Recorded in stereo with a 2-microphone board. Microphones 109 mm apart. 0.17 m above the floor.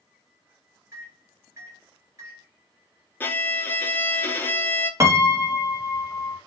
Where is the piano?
30° right (ahead or behind), 0.7 m.